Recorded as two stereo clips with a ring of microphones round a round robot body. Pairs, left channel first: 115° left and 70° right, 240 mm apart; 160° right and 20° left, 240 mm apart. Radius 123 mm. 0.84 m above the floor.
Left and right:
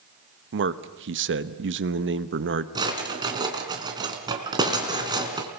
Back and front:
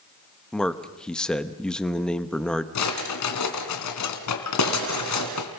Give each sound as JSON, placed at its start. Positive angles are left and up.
{"t": 0.5, "sound": "a man speaking", "azimuth_deg": -70, "distance_m": 1.1}
{"t": 2.8, "sound": "a drawer", "azimuth_deg": -140, "distance_m": 3.0}